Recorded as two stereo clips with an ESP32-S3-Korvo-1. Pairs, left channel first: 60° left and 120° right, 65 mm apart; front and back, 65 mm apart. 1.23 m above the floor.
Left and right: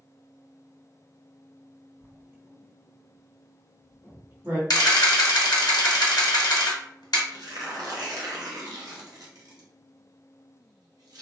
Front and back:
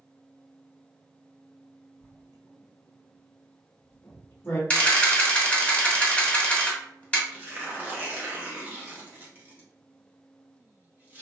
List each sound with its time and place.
2.0 s writing: 60° right, 1.3 m
4.7 s a camera shutter: 75° left, 0.9 m
7.3 s tearing paper: 120° right, 0.9 m